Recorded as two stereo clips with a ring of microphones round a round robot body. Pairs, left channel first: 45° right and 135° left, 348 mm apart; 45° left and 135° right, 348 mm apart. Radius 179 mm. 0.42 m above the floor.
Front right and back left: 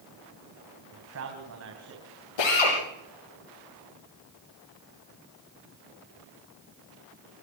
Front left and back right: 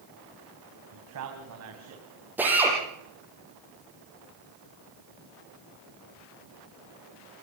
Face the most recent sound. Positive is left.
turn(degrees=-50)